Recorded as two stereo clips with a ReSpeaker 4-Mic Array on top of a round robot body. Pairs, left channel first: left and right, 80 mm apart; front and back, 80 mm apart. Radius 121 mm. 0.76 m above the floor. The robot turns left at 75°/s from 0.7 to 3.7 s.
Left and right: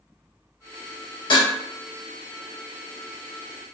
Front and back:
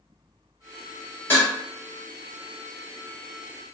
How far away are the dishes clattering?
About 1.8 m.